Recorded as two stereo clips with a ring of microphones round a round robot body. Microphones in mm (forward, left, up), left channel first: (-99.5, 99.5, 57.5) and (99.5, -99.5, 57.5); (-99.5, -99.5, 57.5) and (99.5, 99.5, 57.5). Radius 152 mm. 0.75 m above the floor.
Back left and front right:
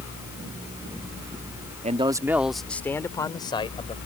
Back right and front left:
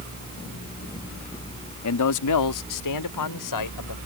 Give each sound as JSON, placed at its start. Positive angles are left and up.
{"t": 1.8, "sound": "a man speaking", "azimuth_deg": -110}